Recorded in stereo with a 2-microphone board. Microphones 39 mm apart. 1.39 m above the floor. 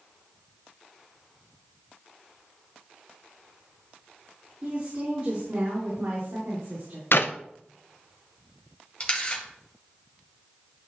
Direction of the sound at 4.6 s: 40° right (ahead or behind).